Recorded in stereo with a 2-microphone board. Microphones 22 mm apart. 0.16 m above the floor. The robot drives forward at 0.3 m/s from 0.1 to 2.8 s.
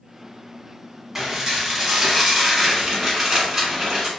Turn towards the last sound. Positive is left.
turn(degrees=-10)  # may be behind; listen again after turning